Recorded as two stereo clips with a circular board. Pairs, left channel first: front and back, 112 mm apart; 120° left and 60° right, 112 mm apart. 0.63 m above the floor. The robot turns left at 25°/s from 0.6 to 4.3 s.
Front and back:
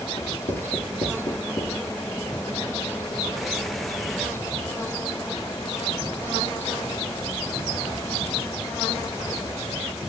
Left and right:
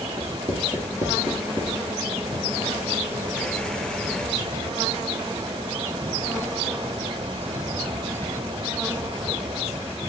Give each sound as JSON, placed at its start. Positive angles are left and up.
{"t": 0.2, "sound": "writing", "azimuth_deg": 10, "distance_m": 4.0}